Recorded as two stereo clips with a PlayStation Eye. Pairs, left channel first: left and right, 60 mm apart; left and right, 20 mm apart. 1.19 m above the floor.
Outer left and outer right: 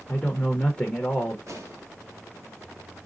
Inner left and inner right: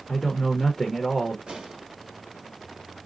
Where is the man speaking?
15° left (ahead or behind), 0.9 m.